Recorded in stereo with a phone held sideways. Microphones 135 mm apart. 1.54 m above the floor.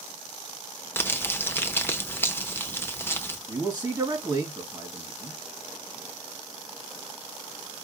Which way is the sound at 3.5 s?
30° right (ahead or behind).